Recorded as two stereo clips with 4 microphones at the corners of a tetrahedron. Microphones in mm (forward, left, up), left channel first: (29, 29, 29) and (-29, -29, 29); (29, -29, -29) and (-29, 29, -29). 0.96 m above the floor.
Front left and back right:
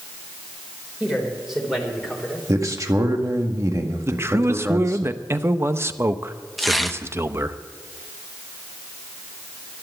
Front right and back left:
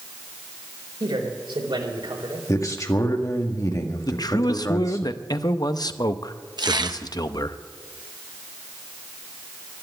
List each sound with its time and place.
1.0 s a man speaking: 135° left, 4.5 m
2.5 s a man speaking: 90° right, 1.9 m
4.0 s a man speaking: 80° right, 0.7 m
6.6 s tearing paper: 135° left, 0.8 m